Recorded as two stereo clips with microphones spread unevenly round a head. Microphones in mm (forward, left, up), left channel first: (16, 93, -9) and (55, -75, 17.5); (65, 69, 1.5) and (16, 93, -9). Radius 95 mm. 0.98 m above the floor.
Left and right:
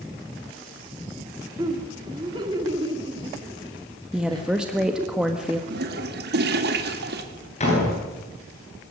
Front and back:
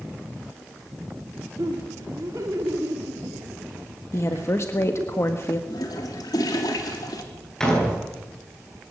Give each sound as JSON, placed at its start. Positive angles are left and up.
{"t": 1.6, "sound": "laughter", "azimuth_deg": -150, "distance_m": 2.5}
{"t": 4.1, "sound": "a woman speaking", "azimuth_deg": 10, "distance_m": 1.5}
{"t": 5.7, "sound": "a toilet flushing", "azimuth_deg": -50, "distance_m": 2.5}
{"t": 7.6, "sound": "a door slam", "azimuth_deg": 50, "distance_m": 10.0}